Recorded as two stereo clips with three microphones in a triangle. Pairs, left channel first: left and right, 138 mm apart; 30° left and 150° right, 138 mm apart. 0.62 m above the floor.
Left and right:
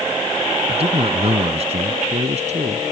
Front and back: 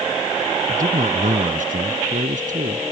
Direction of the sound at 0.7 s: 135° right.